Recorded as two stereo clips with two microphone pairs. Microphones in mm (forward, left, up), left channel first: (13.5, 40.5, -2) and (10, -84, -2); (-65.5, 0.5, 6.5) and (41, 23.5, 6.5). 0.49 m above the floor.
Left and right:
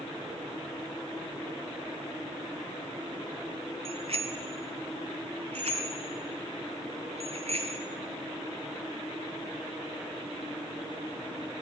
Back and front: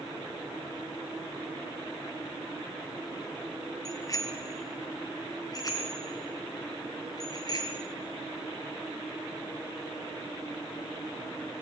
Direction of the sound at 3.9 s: 115° right.